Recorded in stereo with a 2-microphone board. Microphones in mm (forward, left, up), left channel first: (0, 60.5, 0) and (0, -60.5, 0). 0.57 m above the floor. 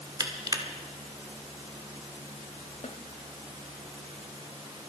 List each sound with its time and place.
0.2 s crushing: 35° right (ahead or behind), 1.6 m
2.8 s a snare drum: 70° left (ahead or behind), 1.2 m